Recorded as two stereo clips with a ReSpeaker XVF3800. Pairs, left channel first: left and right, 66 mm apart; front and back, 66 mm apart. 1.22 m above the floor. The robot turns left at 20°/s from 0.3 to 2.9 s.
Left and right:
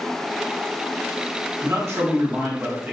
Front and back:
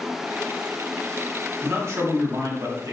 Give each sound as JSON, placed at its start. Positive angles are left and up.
{"t": 1.6, "sound": "a man speaking", "azimuth_deg": -130, "distance_m": 0.9}